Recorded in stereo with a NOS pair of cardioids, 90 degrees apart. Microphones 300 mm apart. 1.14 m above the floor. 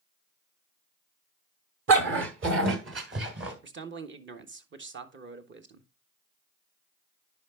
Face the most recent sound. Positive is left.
turn(degrees=-40)